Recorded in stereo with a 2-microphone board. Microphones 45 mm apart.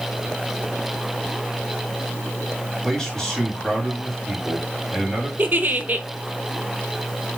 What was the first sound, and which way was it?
A man speaking, 15° left (ahead or behind).